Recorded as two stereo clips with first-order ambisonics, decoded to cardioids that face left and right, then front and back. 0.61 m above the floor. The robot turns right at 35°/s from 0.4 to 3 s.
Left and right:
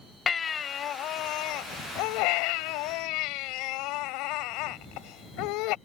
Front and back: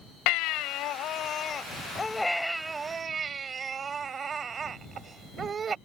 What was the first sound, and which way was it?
A baby crying, 20° left.